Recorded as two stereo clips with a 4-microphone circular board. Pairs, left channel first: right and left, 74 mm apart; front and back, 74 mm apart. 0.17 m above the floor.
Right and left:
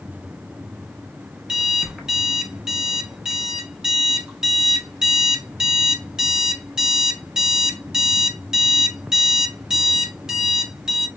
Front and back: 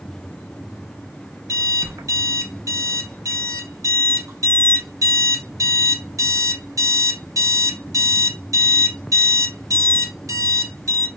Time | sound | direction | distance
1.5 | an alarm clock | 165° left | 0.8 m